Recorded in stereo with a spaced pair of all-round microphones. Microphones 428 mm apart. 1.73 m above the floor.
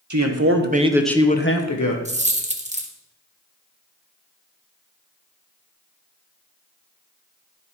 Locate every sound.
0.1 s a man speaking: 45° right (ahead or behind), 1.3 m; by 1.9 s 50° left (ahead or behind), 1.1 m
2.0 s a dropped coin: 15° right (ahead or behind), 1.0 m